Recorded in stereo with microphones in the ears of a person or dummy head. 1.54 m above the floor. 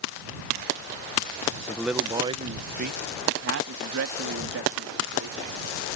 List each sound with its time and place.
1.7 s a man speaking: 5° left (ahead or behind); by 6.0 s 85° right